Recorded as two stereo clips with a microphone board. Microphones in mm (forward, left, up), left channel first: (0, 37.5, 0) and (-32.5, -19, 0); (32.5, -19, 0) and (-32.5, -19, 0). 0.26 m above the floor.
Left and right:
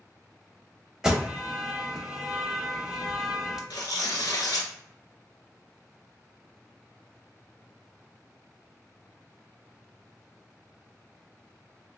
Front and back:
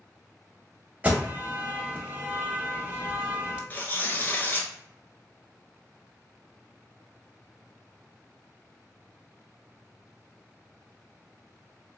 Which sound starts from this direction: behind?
An alarm, at 1.0 s.